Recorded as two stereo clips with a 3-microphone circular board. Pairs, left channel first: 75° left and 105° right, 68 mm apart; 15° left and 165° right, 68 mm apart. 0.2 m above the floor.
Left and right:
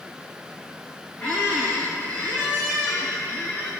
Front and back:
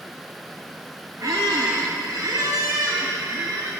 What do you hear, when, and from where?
1.2 s a squeak: 150° left, 1.1 m